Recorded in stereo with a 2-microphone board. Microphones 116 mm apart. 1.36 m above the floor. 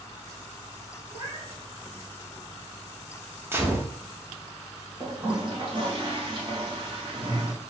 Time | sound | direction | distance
1.1 | a cat meowing | 40° right (ahead or behind) | 1.4 m
3.5 | a gunshot | 20° right (ahead or behind) | 0.9 m
5.0 | a toilet flushing | 45° right (ahead or behind) | 1.4 m